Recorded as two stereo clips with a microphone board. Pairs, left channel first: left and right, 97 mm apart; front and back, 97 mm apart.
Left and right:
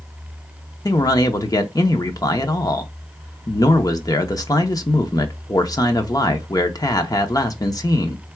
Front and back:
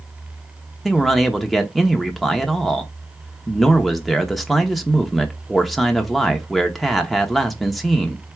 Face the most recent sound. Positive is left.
turn(degrees=90)